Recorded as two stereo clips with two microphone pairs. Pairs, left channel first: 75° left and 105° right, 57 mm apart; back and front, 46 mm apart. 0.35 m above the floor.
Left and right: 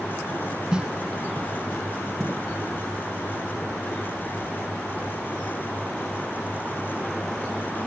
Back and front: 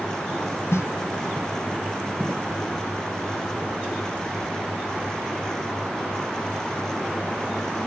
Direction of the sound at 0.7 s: 175° right.